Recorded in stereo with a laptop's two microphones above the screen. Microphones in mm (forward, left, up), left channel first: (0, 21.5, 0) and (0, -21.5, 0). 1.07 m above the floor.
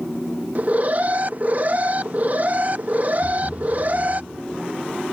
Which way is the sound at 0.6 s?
40° right (ahead or behind).